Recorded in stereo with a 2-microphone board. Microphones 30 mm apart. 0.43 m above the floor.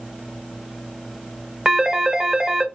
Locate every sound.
1.6 s a phone ringing: 20° right (ahead or behind), 0.6 m